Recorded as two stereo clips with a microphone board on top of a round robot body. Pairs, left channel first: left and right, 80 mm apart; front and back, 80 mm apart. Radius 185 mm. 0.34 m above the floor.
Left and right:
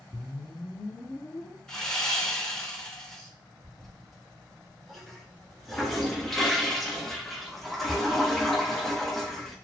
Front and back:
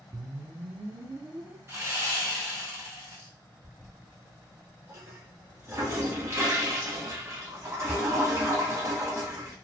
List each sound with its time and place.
0.1 s a whoosh: 150° left, 0.5 m
1.7 s sawing: 165° left, 1.8 m
3.6 s a toilet flushing: 175° left, 1.5 m